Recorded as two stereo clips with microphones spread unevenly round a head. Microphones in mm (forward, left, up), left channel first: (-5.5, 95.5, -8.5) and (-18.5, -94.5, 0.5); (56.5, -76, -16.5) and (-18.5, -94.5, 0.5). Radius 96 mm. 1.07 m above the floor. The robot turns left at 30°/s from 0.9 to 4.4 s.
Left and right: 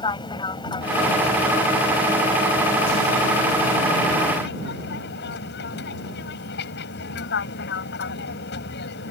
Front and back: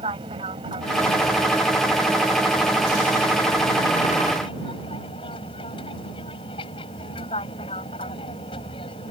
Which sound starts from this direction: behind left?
An aircraft, at 0.0 s.